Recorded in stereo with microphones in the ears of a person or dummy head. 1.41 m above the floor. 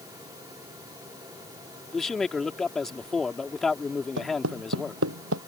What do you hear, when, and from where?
1.9 s a man speaking: 5° left (ahead or behind)
4.2 s footsteps: 85° right; by 5.4 s 80° right